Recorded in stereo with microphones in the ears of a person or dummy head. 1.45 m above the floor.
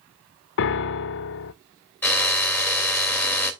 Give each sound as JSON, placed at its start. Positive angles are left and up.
{"t": 0.6, "sound": "a piano", "side_deg": 65, "distance_m": 0.5}
{"t": 2.0, "sound": "a drill", "side_deg": 10, "distance_m": 3.0}